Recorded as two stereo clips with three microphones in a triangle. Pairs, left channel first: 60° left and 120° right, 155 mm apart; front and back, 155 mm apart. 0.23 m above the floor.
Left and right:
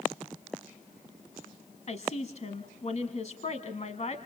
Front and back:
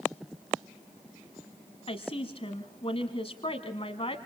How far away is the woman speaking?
About 1.5 m.